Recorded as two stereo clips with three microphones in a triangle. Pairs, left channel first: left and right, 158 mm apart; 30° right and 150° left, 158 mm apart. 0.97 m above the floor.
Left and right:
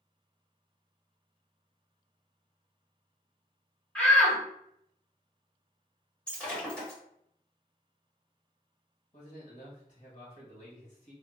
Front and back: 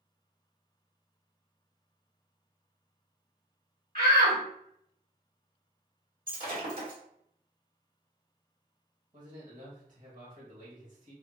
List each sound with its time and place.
4.0 s a shout: 170° left, 1.4 m
6.3 s breaking glass: 175° left, 1.4 m
9.1 s a man speaking: 125° left, 1.5 m